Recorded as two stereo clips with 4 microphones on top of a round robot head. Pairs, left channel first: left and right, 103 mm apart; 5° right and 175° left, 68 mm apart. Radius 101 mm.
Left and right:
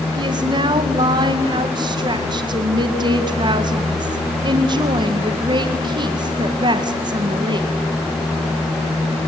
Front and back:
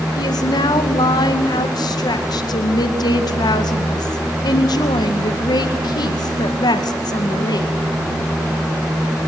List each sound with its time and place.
0.2 s a woman speaking: 40° right, 2 m